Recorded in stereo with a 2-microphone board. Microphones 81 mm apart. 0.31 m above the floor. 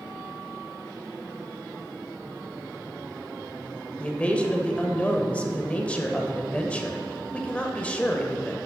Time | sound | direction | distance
4.0 | a man speaking | 15° left (ahead or behind) | 0.9 m